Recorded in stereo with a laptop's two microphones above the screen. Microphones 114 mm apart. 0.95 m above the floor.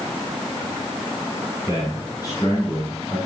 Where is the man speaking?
35° left (ahead or behind), 4 m.